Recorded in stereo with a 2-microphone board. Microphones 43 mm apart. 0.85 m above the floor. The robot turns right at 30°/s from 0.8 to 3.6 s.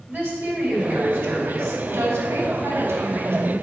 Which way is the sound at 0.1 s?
135° right.